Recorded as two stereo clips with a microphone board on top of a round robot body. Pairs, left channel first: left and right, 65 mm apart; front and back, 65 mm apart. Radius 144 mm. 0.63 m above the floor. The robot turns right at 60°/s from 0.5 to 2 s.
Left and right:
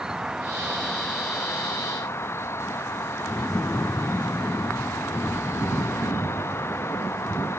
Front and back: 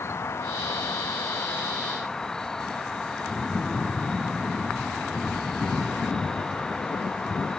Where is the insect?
15° right; by 7.6 s 75° left.